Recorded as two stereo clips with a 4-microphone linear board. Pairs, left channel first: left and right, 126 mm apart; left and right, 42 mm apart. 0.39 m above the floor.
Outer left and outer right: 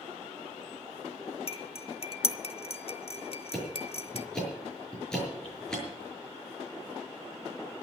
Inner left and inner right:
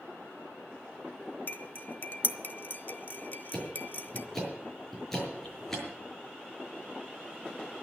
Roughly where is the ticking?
Centre.